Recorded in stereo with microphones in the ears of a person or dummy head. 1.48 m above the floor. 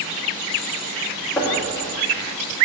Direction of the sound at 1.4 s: 10° left (ahead or behind).